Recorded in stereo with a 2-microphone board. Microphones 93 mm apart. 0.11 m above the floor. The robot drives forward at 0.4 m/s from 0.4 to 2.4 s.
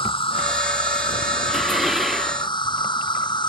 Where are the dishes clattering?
5° right (ahead or behind).